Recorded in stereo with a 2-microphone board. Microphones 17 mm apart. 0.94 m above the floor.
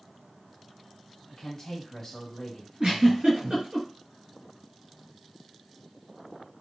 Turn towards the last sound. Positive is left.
turn(degrees=-65)  # may be behind; listen again after turning